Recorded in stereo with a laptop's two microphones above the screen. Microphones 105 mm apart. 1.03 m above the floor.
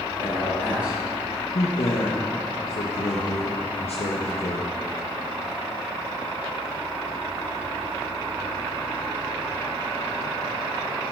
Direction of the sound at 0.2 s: 40° right (ahead or behind).